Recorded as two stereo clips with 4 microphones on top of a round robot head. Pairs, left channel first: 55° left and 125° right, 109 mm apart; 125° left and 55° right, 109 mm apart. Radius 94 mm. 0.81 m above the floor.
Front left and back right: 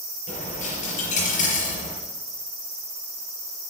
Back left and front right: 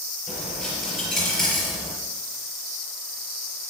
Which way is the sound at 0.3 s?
40° left.